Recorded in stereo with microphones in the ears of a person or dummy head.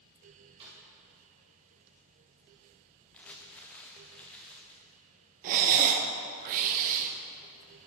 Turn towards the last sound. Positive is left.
turn(degrees=-40)  # may be behind; listen again after turning